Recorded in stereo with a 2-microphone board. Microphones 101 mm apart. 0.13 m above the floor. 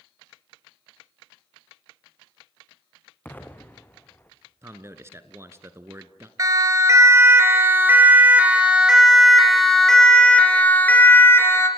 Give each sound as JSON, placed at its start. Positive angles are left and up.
{"t": 3.2, "sound": "an explosion", "side_deg": 20, "distance_m": 2.0}
{"t": 4.6, "sound": "a man speaking", "side_deg": -25, "distance_m": 1.3}
{"t": 6.4, "sound": "a siren", "side_deg": -35, "distance_m": 2.5}